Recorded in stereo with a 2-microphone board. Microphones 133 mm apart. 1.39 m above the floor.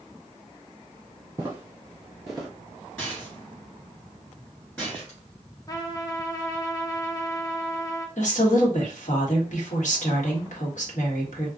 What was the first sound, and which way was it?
Footsteps, 20° right (ahead or behind).